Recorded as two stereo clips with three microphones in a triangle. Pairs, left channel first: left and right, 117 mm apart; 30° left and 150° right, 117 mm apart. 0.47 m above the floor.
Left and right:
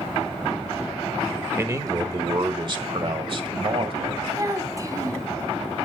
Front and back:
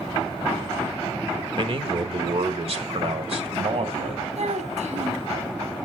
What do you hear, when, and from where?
1.6 s a man speaking: 150° right, 1.0 m; by 4.2 s 125° right, 2.5 m
4.3 s a child speaking: 150° right, 2.5 m